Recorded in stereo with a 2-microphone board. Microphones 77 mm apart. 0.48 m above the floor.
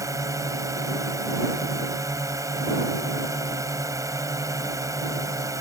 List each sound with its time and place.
0.0 s a drone: 45° right (ahead or behind)